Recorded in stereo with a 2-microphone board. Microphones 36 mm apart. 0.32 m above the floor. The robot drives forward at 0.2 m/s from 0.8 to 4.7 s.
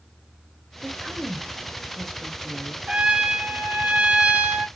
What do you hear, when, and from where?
0.8 s a woman speaking: 5° left (ahead or behind), 0.9 m
2.9 s a trumpet: 30° right (ahead or behind), 0.7 m; by 4.7 s 35° right (ahead or behind), 0.6 m